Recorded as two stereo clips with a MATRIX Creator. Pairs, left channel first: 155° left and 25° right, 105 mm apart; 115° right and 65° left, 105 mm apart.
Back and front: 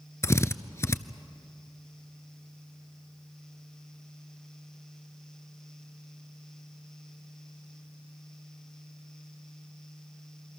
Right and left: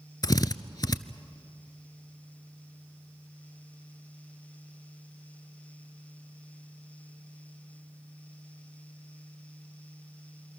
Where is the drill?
150° right, 0.6 m.